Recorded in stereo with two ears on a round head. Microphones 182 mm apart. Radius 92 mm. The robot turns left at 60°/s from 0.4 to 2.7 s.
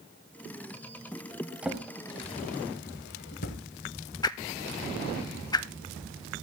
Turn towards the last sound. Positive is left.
turn(degrees=20)  # may be behind; listen again after turning